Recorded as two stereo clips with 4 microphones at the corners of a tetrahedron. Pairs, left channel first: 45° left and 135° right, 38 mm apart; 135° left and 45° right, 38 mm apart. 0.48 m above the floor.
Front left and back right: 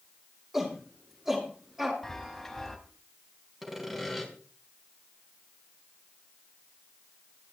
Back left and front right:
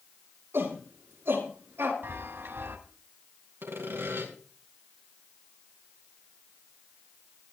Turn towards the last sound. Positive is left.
turn(degrees=-50)